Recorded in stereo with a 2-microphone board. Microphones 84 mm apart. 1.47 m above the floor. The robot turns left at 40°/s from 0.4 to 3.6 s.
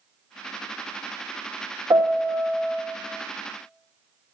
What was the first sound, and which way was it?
A piano, 140° right.